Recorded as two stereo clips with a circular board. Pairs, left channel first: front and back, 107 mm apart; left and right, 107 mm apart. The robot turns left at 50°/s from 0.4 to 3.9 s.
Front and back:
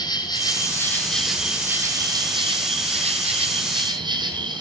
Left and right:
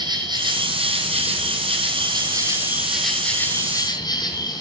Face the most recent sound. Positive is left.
turn(degrees=135)